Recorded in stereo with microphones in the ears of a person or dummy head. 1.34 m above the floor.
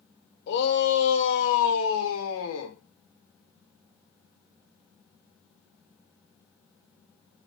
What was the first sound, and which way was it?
A shout, 70° left (ahead or behind).